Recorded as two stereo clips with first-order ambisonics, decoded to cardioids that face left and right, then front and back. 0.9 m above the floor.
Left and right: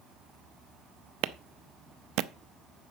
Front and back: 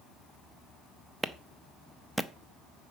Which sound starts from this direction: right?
A clap, at 1.2 s.